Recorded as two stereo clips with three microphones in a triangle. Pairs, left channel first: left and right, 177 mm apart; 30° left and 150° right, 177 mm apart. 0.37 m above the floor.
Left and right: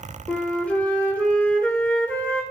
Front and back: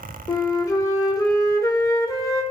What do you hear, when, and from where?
0.3 s a flute: 25° left, 1.0 m